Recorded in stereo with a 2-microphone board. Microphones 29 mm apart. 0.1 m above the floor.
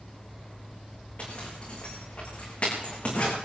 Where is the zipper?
55° left (ahead or behind), 6 m.